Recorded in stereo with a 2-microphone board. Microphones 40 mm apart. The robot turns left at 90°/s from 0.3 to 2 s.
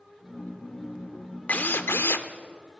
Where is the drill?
135° left, 0.7 m; by 2.3 s 90° left, 0.7 m.